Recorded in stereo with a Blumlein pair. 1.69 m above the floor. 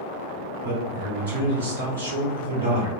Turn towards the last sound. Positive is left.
turn(degrees=-65)